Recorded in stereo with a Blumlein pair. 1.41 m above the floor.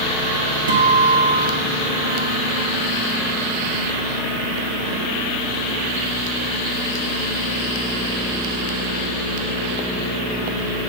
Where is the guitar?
70° right, 1.6 m.